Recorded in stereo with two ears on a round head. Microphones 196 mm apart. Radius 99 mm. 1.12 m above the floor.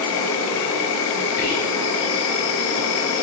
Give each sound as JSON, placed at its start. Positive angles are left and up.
{"t": 0.0, "sound": "an insect", "side_deg": 75, "distance_m": 0.8}
{"t": 1.4, "sound": "whispering", "side_deg": 45, "distance_m": 1.6}